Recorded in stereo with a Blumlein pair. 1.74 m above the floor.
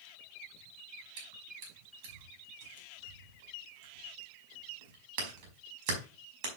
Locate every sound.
1.2 s chewing: 45° right, 5 m